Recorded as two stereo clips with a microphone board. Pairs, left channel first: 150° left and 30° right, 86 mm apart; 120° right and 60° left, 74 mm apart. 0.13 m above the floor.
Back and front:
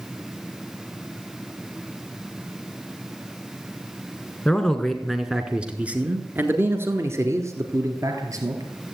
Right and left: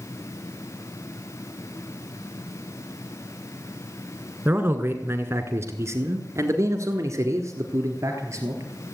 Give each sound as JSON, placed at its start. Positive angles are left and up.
{"t": 4.5, "sound": "a man speaking", "azimuth_deg": 80, "distance_m": 1.4}